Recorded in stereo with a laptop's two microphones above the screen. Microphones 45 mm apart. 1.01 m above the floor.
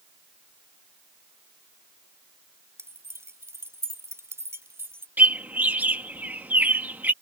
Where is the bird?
40° right (ahead or behind).